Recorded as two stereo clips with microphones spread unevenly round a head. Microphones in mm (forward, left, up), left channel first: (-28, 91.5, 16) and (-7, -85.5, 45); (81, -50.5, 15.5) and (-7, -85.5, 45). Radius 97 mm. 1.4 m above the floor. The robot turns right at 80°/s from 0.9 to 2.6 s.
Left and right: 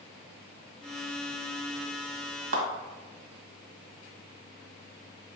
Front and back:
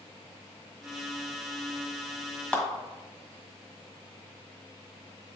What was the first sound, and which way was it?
A clap, 65° right.